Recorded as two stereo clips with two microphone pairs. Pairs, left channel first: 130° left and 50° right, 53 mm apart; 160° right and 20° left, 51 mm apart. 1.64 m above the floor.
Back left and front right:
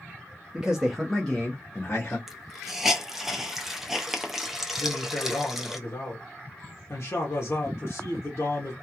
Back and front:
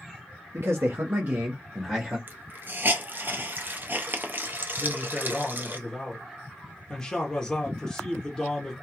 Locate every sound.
0.5 s a man speaking: 20° left, 0.8 m; by 2.2 s 100° left, 1.0 m
2.3 s a hiss: 35° left, 0.5 m
4.8 s a man speaking: 125° left, 0.8 m